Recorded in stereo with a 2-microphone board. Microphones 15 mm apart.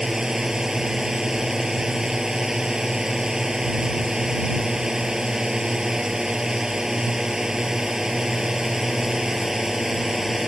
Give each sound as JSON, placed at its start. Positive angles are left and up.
{"t": 0.0, "sound": "a drone", "side_deg": -40}